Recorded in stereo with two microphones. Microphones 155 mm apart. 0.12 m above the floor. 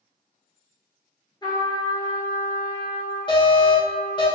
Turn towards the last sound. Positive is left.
turn(degrees=30)  # may be behind; listen again after turning